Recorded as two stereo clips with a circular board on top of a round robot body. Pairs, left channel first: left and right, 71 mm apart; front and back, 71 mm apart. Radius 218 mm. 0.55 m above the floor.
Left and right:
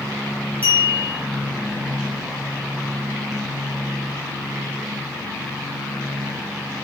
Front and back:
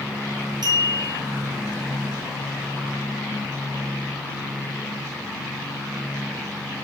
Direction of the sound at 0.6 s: 160° left.